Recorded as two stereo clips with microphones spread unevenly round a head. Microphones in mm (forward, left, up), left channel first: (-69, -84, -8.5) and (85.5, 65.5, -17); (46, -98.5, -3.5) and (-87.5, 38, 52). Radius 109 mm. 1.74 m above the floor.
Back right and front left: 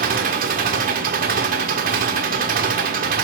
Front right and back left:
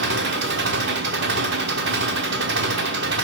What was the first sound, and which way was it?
An engine running, 100° left.